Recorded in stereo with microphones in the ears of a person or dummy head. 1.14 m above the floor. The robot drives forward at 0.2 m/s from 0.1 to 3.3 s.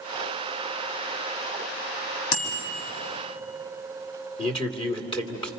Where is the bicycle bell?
85° left, 5 m.